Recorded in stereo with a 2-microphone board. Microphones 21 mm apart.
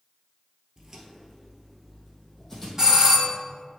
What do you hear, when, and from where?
0.8 s footsteps: 20° right (ahead or behind), 1.2 m; by 2.7 s 10° left (ahead or behind), 2.5 m
2.8 s a doorbell: 25° right (ahead or behind), 1.5 m